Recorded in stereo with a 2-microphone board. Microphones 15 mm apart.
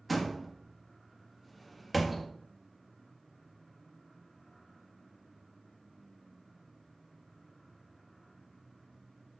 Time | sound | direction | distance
0.1 | a door slam | 5° right (ahead or behind) | 1.3 m